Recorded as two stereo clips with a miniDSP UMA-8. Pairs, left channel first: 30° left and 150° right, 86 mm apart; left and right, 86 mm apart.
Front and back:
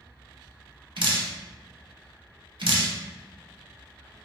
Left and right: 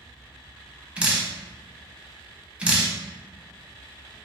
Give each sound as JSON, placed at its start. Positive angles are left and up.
{"t": 1.0, "sound": "dripping", "azimuth_deg": -165, "distance_m": 0.5}